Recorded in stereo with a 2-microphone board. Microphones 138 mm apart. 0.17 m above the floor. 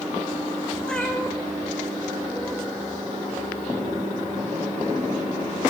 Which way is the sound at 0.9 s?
5° left (ahead or behind).